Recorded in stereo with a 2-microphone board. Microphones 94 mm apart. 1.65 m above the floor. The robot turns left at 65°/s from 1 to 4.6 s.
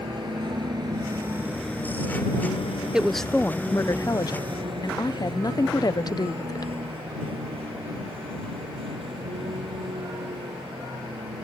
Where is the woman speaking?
170° right; by 6.7 s 80° left.